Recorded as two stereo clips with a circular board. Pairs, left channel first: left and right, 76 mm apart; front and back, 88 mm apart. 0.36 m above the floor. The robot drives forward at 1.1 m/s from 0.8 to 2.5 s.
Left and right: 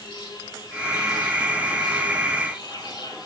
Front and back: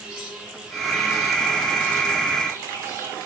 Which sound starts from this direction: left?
An insect, at 0.0 s.